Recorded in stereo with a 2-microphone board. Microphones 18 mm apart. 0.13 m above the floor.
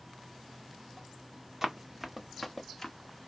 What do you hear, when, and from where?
1.6 s running footsteps: 20° right (ahead or behind), 0.9 m; by 3.0 s 20° left (ahead or behind), 1.0 m